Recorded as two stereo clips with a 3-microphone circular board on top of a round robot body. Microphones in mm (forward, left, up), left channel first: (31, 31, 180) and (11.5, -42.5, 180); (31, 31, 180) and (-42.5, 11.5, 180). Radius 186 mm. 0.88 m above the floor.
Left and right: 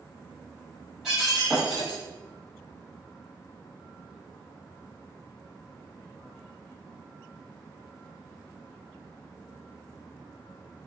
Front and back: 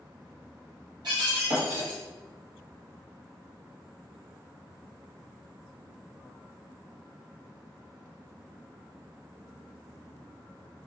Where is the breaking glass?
170° left, 1.1 m.